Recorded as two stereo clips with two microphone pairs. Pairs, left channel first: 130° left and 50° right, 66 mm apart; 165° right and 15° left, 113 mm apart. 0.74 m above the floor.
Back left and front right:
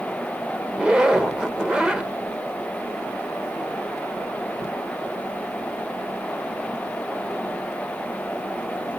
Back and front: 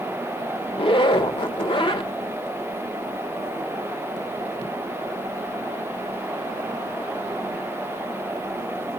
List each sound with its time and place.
0.7 s a zipper: 125° right, 1.2 m